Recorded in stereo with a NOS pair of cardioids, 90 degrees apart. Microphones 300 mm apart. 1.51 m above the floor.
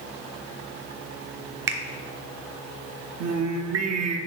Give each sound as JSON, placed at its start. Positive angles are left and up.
{"t": 1.7, "sound": "a finger snap", "azimuth_deg": -40, "distance_m": 0.9}
{"t": 3.2, "sound": "singing", "azimuth_deg": -60, "distance_m": 0.7}